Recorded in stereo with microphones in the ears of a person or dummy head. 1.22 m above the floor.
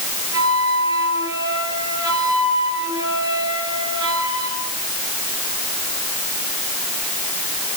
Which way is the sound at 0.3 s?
20° right (ahead or behind).